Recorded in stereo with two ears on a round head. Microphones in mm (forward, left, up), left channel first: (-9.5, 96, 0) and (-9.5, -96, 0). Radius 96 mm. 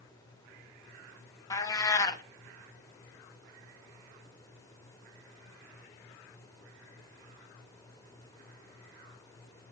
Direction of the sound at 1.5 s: 15° left (ahead or behind).